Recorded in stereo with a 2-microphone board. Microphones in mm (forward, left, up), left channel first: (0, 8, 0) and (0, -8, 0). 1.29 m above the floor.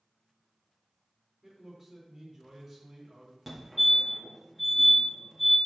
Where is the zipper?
No zipper in this recording.